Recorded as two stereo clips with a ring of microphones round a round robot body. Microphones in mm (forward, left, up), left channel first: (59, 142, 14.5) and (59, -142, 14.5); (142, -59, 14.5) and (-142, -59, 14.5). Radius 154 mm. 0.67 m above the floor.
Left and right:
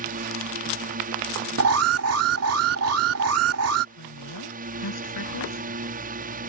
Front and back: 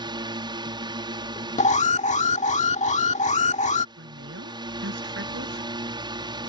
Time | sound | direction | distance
0.0 | a drone | 120° right | ?
1.6 | an alarm | 65° right | ?
4.0 | a woman speaking | 120° left | ?